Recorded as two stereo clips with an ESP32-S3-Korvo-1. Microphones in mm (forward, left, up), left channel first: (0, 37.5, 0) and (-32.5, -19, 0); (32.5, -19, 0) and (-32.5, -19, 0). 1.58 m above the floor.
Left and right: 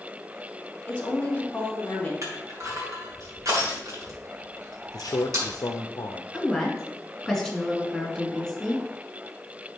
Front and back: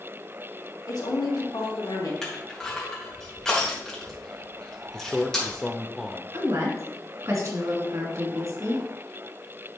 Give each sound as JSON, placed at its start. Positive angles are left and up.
{"t": 0.9, "sound": "a woman speaking", "azimuth_deg": -10, "distance_m": 2.5}
{"t": 2.2, "sound": "crushing", "azimuth_deg": -80, "distance_m": 2.5}
{"t": 4.9, "sound": "a man speaking", "azimuth_deg": 90, "distance_m": 0.6}
{"t": 6.3, "sound": "a woman speaking", "azimuth_deg": 150, "distance_m": 2.5}